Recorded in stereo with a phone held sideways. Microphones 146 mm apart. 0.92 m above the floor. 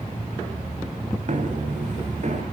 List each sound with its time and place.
1.3 s footsteps: 60° right (ahead or behind), 3.5 m; by 2.4 s 55° right (ahead or behind), 4.5 m